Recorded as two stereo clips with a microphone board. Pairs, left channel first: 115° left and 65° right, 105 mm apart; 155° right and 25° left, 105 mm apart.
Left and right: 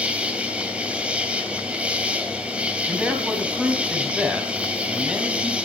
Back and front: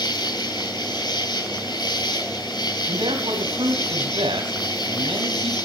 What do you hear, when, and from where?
0.0 s an insect: 140° right, 2.5 m
2.9 s a man speaking: 10° left, 2.5 m